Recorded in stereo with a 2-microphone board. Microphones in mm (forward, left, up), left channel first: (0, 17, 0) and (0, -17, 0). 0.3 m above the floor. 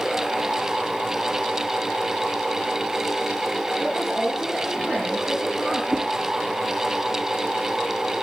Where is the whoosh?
30° right (ahead or behind), 2.5 m.